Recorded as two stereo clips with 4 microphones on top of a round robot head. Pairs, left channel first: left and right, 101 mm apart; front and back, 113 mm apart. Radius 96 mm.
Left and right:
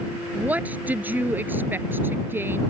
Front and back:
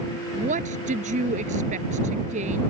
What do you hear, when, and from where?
0.3 s a woman speaking: 165° right; by 2.6 s 160° right